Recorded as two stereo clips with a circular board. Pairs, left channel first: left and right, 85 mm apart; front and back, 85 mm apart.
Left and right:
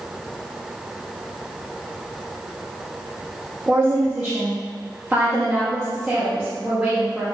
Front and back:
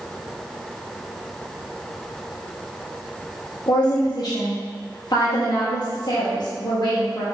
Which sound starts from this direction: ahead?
A woman speaking, at 3.7 s.